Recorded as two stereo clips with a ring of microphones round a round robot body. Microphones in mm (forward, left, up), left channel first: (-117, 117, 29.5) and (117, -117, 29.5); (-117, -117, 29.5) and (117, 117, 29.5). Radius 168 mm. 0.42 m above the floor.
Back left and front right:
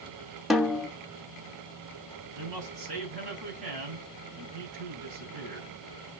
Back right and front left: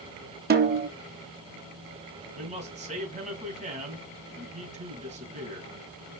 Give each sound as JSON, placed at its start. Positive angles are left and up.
{"t": 0.5, "sound": "a snare drum", "azimuth_deg": 45, "distance_m": 1.0}
{"t": 2.3, "sound": "a man speaking", "azimuth_deg": -25, "distance_m": 3.5}